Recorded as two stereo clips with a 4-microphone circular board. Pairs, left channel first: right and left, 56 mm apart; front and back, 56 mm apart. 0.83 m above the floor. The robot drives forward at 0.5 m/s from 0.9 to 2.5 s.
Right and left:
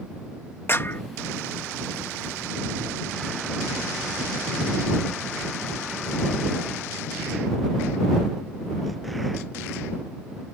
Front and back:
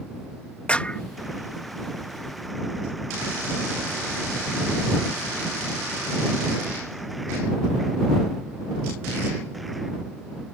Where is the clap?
60° right; by 1.0 s 65° right.